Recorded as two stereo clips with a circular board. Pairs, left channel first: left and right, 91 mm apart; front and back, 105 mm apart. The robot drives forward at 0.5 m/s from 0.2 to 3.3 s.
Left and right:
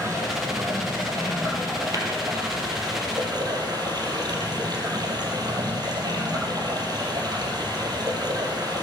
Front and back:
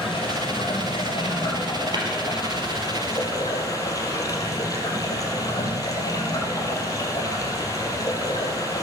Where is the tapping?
135° right, 3.5 m.